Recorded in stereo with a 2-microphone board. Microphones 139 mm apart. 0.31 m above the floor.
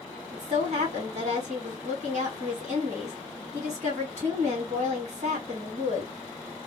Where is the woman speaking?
60° right (ahead or behind), 2.5 m.